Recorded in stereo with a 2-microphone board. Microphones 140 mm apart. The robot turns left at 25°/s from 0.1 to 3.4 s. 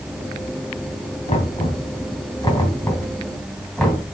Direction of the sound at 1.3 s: 60° left (ahead or behind).